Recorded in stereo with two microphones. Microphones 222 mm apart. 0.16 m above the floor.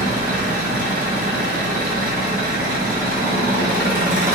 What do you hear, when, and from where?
0.0 s an engine running: 45° right (ahead or behind), 1.9 m